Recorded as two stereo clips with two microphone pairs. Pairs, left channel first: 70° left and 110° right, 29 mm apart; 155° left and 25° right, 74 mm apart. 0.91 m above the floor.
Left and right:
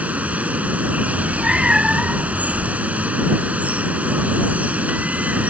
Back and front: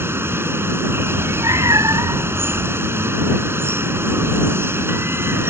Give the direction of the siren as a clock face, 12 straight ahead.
I don't hear a siren.